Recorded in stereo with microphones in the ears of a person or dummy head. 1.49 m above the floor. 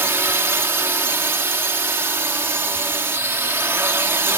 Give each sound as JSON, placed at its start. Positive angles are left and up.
{"t": 0.0, "sound": "a drone", "side_deg": -10}